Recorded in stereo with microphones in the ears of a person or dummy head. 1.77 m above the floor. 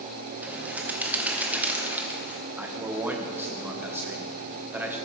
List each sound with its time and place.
0.4 s a bird: 10° right (ahead or behind), 1.1 m
2.6 s a man speaking: 10° right (ahead or behind), 0.9 m